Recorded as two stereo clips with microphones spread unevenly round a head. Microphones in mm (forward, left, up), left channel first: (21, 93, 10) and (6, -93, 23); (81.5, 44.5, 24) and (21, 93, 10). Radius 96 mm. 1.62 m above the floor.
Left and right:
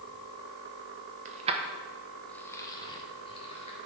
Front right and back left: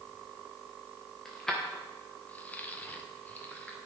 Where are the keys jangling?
115° right, 0.7 m; by 3.8 s 25° left, 1.4 m.